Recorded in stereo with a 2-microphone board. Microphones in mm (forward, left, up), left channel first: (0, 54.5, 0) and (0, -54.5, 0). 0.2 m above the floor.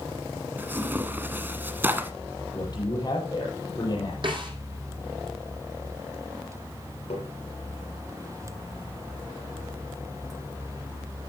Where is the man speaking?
40° left (ahead or behind), 7.5 m.